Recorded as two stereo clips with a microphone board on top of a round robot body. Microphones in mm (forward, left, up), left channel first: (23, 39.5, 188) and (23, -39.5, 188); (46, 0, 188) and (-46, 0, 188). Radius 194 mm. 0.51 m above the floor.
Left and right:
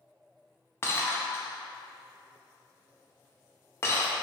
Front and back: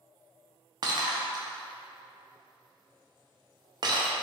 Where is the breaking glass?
145° left, 0.6 m.